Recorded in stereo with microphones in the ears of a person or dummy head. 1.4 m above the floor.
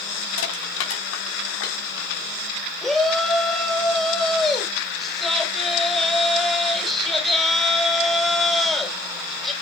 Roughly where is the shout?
Centre.